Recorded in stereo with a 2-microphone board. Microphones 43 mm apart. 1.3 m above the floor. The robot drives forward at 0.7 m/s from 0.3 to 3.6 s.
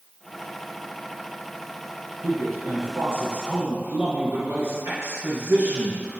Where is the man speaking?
70° right (ahead or behind), 1.1 m; by 6.2 s 60° right (ahead or behind), 1.2 m.